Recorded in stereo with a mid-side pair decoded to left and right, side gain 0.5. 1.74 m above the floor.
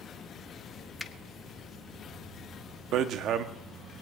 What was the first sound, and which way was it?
A finger snap, 10° left.